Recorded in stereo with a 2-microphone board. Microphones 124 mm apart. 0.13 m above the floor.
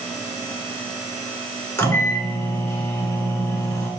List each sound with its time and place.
1.8 s a microwave: 15° left (ahead or behind), 1.2 m